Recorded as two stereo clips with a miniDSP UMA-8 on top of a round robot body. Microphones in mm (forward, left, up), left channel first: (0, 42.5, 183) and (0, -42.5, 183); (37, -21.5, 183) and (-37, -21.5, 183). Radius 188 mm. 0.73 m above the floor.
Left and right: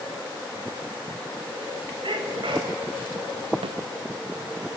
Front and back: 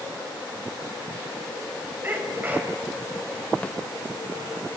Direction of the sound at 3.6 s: 75° right.